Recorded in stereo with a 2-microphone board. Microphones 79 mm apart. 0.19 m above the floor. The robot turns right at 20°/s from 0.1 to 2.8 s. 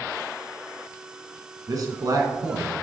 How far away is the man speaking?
About 1.7 m.